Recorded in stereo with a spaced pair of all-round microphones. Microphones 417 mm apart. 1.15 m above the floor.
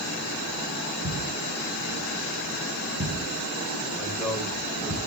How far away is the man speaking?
About 6 m.